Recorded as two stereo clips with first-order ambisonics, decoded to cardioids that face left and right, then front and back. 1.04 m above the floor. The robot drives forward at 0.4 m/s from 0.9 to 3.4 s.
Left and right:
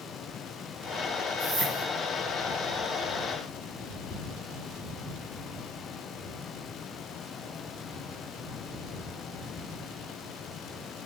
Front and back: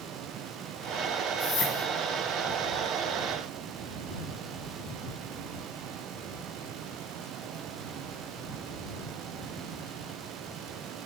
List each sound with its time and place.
1.4 s a whoosh: 35° right, 2 m; by 1.9 s 40° right, 2 m